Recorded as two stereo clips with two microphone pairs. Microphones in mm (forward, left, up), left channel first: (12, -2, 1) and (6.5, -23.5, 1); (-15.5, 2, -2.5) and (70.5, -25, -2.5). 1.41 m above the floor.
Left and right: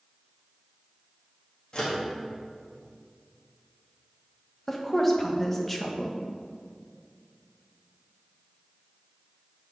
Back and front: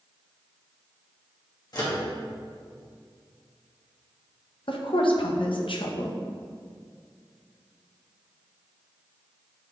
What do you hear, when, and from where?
1.7 s a microwave: 120° left, 1.7 m
4.7 s a woman speaking: 155° left, 1.0 m